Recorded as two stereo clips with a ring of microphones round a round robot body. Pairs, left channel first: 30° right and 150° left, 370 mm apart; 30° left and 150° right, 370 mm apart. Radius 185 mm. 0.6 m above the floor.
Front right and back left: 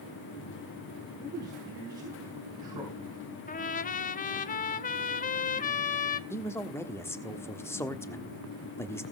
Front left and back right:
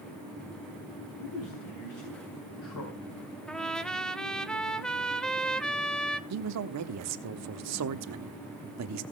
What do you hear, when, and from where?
1.2 s a man speaking: 70° left, 4 m
3.5 s a trumpet: 55° right, 0.6 m
6.3 s a man speaking: 110° right, 1.1 m